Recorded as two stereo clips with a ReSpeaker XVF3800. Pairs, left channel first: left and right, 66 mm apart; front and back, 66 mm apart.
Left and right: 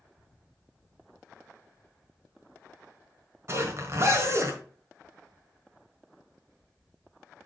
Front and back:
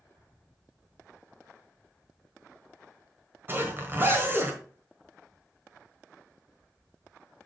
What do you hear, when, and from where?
3.5 s a zipper: 130° right, 1.4 m